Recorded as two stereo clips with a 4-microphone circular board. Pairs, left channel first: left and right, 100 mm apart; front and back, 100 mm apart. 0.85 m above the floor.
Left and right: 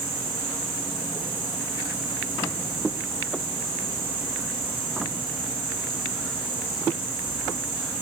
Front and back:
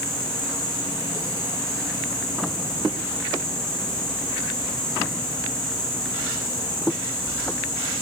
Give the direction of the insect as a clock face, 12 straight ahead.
3 o'clock.